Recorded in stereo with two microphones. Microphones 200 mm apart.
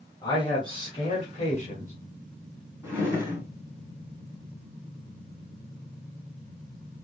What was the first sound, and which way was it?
A man speaking, 20° left (ahead or behind).